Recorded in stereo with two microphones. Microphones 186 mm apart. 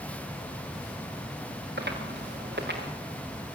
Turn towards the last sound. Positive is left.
turn(degrees=-70)  # may be behind; listen again after turning